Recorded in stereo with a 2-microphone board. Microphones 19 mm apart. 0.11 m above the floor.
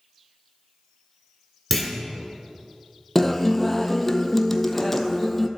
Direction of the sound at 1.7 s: Centre (ahead or behind).